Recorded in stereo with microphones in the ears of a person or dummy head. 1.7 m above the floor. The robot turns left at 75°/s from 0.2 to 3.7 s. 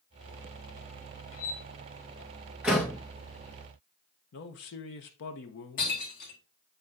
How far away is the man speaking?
About 1.3 m.